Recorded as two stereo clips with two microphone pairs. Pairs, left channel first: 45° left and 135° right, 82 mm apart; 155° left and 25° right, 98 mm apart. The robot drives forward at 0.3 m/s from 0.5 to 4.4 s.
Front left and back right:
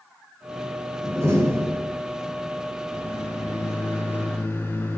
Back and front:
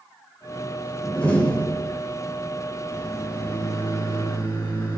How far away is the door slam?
About 1.1 m.